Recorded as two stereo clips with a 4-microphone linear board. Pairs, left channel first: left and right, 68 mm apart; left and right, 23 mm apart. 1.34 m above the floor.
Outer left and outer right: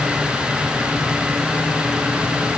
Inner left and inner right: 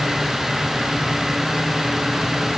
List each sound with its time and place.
Only background noise.